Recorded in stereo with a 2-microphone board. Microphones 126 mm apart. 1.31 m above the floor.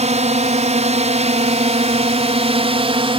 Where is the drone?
65° right (ahead or behind); by 3.2 s 45° right (ahead or behind).